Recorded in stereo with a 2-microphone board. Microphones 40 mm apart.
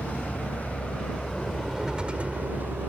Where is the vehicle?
40° left (ahead or behind); by 2.9 s 60° right (ahead or behind).